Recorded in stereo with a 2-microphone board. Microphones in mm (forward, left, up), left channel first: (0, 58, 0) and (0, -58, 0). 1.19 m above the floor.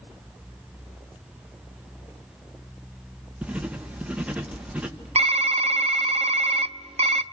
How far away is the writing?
About 1.5 m.